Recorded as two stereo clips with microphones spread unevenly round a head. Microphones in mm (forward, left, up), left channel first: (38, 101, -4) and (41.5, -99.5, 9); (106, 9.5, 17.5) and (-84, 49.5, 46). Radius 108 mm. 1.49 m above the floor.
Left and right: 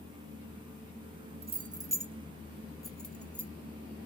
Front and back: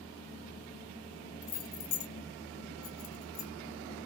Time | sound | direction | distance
1.4 | keys jangling | 45° right | 0.6 m